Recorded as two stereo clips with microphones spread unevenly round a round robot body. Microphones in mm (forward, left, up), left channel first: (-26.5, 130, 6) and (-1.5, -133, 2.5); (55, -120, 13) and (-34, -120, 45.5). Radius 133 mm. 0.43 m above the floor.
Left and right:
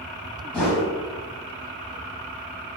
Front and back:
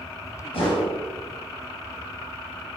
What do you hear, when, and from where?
0.5 s a whoosh: 10° left, 0.9 m